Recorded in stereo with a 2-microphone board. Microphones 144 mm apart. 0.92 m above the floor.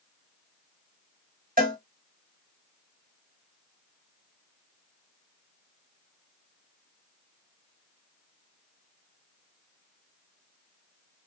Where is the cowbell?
75° right (ahead or behind), 1.3 m.